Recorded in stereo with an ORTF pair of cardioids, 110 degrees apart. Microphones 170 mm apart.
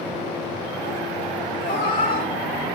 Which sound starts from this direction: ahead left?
A cat meowing, at 1.6 s.